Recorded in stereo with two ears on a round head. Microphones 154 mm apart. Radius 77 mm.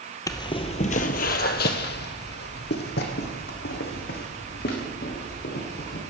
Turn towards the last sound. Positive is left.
turn(degrees=55)  # may be behind; listen again after turning